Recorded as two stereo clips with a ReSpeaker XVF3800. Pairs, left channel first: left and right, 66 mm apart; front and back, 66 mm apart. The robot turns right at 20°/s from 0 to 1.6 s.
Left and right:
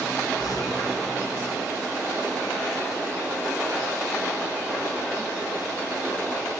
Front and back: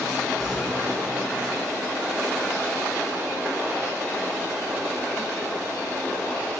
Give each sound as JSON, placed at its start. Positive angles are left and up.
{"t": 0.4, "sound": "an explosion", "azimuth_deg": 95, "distance_m": 4.5}